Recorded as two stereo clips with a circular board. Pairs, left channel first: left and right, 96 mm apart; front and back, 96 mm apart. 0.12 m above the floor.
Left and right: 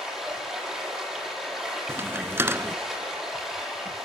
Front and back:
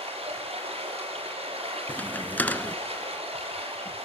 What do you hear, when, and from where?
0.0 s running water: straight behind, 6.5 m
1.9 s a crack: 55° right, 0.6 m